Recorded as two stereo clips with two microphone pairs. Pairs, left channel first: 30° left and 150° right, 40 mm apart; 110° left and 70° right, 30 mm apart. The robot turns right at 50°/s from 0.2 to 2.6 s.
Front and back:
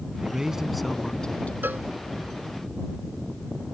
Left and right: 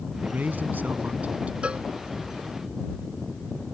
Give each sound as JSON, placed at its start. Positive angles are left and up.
{"t": 0.2, "sound": "a man speaking", "azimuth_deg": -90}
{"t": 1.6, "sound": "a cowbell", "azimuth_deg": -125}